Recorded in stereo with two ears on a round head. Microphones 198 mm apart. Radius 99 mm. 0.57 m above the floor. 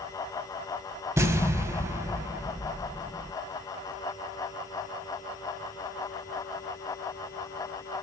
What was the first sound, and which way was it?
An explosion, 15° right (ahead or behind).